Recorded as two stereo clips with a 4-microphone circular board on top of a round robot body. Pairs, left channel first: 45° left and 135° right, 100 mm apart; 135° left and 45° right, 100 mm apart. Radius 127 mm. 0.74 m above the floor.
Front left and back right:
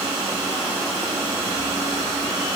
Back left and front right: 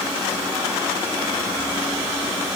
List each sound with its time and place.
Only background noise.